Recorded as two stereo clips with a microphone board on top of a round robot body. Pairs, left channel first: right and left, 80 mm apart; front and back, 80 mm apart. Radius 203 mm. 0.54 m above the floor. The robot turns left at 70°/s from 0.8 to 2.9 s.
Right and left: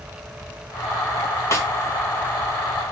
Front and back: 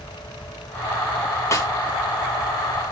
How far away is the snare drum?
About 2 m.